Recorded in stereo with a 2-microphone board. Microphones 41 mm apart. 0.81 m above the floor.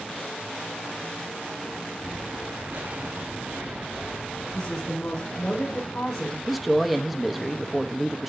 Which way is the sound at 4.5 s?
5° left (ahead or behind).